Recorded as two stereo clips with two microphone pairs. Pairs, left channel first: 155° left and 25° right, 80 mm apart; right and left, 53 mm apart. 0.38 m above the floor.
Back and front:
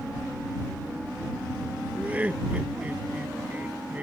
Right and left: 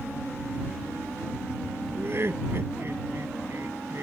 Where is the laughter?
50° left.